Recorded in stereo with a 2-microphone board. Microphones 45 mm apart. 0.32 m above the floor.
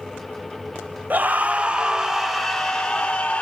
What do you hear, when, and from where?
1.1 s a scream: 40° right (ahead or behind), 1.2 m; by 3.4 s 20° left (ahead or behind), 1.8 m